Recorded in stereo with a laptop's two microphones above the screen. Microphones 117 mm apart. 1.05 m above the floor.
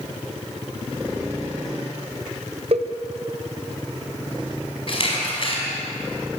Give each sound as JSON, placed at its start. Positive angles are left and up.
{"t": 2.7, "sound": "a cowbell", "side_deg": -55, "distance_m": 1.3}
{"t": 4.9, "sound": "a camera shutter", "side_deg": 50, "distance_m": 4.5}